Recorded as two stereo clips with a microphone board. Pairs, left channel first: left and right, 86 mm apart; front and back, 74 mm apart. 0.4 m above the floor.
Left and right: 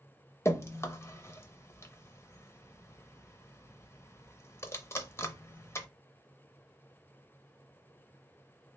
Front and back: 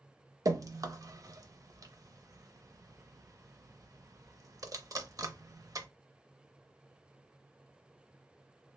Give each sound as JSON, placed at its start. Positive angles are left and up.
{"t": 0.5, "sound": "dripping", "azimuth_deg": 145, "distance_m": 0.5}